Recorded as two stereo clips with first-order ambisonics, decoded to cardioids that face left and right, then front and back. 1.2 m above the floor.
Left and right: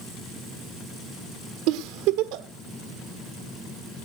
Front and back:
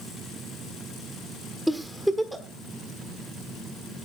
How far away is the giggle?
About 1.4 m.